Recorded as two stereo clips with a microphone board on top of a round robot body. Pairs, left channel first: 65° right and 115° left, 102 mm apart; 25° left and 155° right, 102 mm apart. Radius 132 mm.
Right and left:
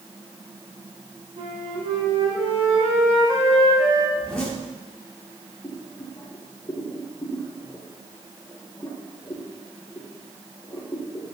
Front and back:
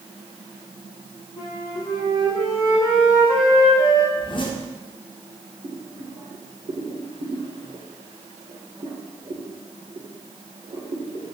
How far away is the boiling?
About 2 m.